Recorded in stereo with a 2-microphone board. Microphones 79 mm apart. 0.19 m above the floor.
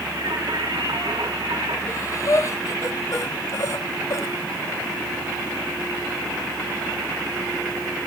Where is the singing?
65° right (ahead or behind), 4 m.